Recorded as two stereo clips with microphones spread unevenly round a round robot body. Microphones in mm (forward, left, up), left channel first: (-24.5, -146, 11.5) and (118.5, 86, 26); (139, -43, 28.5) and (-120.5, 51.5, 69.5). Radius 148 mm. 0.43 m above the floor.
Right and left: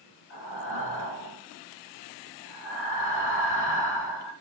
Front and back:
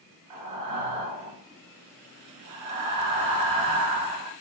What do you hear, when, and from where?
0.3 s breathing: 175° right, 2.5 m